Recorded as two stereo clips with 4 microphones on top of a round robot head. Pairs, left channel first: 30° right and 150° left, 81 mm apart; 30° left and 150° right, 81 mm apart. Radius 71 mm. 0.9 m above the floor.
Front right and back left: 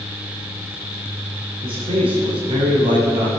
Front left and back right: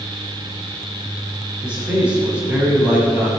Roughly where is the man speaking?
Behind left.